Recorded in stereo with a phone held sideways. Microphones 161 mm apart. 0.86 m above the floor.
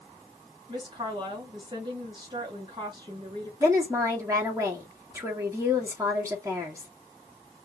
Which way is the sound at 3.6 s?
20° right (ahead or behind).